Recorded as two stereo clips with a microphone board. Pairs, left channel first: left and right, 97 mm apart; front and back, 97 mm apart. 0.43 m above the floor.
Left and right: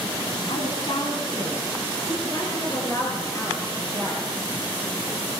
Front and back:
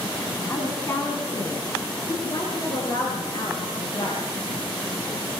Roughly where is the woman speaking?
Ahead left.